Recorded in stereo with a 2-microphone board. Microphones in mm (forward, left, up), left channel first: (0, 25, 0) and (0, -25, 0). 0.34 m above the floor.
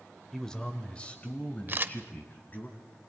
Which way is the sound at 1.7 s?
40° right (ahead or behind).